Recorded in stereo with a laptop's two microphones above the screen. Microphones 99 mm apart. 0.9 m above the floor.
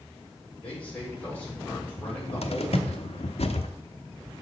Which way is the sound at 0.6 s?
15° left (ahead or behind).